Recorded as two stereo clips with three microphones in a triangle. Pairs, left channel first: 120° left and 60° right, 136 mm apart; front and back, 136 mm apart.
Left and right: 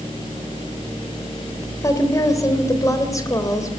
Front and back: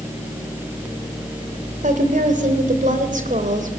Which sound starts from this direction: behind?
A woman speaking, at 1.8 s.